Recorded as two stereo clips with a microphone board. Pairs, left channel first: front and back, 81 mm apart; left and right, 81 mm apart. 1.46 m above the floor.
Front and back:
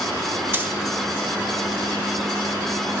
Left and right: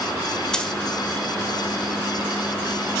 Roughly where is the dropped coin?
Behind.